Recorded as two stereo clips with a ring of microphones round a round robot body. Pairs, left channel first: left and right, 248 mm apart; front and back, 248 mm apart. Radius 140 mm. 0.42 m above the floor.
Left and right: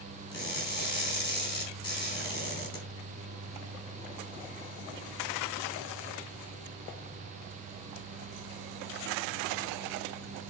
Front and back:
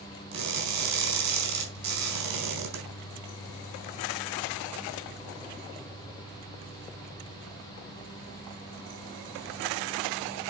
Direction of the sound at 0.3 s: 165° left.